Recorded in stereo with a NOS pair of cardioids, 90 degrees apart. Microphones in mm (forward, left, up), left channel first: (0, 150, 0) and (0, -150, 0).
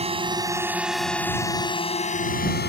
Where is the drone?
20° right; by 2.7 s 35° left.